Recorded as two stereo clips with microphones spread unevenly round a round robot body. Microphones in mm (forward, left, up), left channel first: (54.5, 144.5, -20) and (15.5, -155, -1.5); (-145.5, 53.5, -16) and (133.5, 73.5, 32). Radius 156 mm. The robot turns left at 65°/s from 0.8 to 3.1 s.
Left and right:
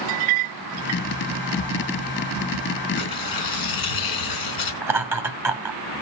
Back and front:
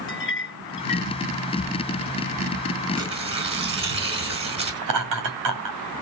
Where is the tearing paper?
85° left, 3.5 m; by 4.8 s 75° left, 3.5 m.